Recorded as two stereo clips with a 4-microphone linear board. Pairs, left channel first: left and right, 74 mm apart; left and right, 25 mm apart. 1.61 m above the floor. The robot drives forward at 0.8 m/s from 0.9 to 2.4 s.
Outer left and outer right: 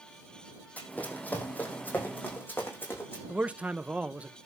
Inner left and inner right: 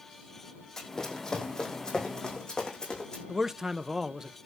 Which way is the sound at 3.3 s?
20° right (ahead or behind).